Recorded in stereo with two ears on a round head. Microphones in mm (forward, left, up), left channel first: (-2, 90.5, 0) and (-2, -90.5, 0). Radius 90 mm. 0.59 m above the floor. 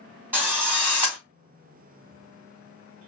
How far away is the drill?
About 2 m.